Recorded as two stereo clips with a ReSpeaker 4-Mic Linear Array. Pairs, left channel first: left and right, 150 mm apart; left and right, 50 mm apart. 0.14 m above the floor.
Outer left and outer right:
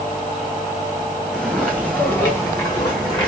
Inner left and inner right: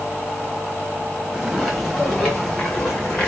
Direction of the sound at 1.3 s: Centre (ahead or behind).